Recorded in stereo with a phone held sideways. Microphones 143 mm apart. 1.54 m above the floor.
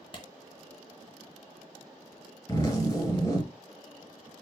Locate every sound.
0.1 s a clap: 35° left (ahead or behind), 0.7 m
2.5 s a zipper: 20° left (ahead or behind), 2 m